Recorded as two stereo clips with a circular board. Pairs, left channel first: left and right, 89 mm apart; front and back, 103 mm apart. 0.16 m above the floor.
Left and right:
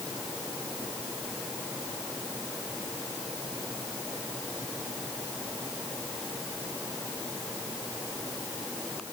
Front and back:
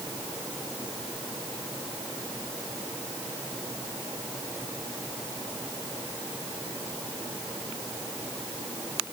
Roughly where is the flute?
I don't hear a flute.